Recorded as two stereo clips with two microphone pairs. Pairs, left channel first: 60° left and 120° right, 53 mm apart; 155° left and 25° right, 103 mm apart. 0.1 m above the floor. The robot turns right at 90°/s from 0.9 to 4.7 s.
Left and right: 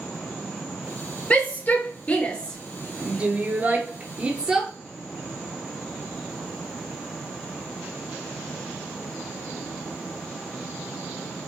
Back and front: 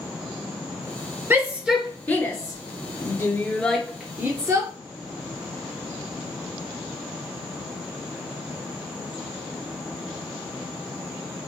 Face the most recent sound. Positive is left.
turn(degrees=-35)